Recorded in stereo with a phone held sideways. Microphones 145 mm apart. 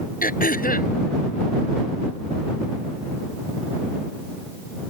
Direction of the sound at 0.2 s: 75° left (ahead or behind).